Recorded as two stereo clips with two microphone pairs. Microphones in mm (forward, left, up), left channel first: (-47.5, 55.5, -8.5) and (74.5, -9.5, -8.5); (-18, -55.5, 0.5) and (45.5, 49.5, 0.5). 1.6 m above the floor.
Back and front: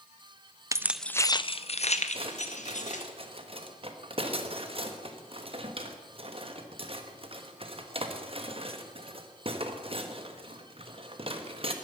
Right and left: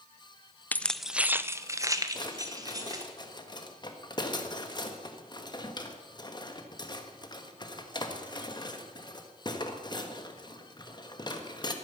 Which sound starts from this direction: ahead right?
Keys jangling, at 0.7 s.